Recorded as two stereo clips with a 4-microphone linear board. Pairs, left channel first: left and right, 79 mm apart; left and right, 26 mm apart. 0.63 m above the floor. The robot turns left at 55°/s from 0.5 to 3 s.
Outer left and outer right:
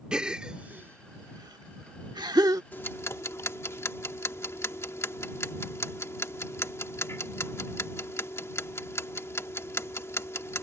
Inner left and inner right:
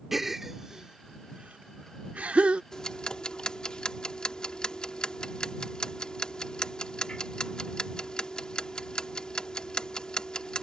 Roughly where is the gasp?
Centre.